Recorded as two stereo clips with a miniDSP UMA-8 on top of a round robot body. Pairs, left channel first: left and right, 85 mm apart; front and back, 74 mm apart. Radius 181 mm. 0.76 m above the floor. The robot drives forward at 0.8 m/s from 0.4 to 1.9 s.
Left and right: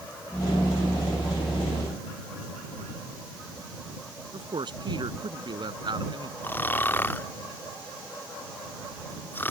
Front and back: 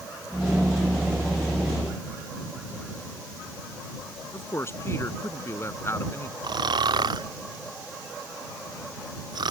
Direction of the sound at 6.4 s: 160° left.